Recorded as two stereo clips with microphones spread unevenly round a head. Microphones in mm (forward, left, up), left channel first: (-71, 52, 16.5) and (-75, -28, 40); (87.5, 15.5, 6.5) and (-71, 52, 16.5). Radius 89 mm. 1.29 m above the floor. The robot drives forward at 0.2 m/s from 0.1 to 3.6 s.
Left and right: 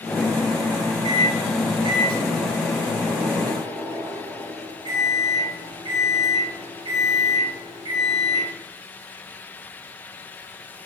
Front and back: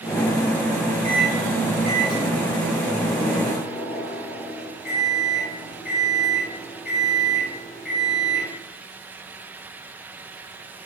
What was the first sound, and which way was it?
A microwave, 105° right.